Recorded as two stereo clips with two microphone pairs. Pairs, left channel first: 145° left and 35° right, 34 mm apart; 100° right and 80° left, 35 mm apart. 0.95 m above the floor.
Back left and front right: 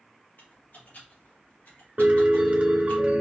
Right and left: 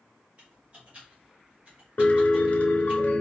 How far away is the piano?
About 1.0 m.